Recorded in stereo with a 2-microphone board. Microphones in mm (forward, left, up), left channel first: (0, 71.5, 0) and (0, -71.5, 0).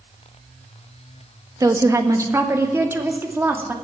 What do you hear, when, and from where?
1.6 s a woman speaking: 25° right (ahead or behind), 1.5 m; by 3.7 s 15° right (ahead or behind), 2.5 m